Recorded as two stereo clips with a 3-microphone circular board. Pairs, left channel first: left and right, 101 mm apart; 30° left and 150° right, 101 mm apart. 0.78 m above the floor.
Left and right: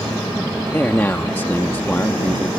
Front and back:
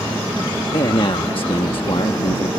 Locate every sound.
0.7 s a man speaking: 25° left